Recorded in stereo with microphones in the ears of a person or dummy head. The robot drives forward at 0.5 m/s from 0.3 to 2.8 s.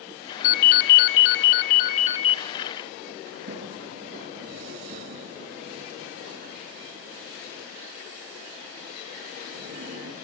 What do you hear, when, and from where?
0.4 s a ringtone: 45° left (ahead or behind), 0.7 m; by 2.4 s 35° left (ahead or behind), 0.8 m
3.3 s a sliding door: 45° right (ahead or behind), 6 m